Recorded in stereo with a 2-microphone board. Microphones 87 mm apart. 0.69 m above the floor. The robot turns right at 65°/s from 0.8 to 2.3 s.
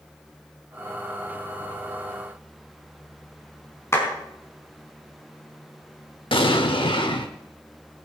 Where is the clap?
30° left (ahead or behind), 4.5 m.